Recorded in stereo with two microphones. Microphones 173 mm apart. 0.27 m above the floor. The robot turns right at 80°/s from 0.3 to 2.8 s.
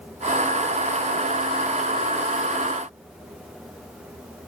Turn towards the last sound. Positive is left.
No sound to turn to.